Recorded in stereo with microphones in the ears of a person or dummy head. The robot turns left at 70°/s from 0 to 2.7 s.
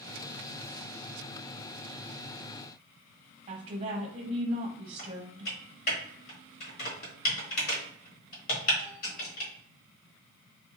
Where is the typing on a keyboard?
50° left (ahead or behind), 1.0 m.